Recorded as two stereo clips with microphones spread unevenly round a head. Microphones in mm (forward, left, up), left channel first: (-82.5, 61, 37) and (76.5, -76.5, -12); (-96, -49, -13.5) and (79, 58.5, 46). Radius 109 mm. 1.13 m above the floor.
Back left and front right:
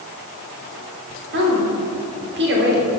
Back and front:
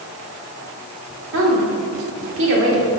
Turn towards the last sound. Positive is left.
turn(degrees=0)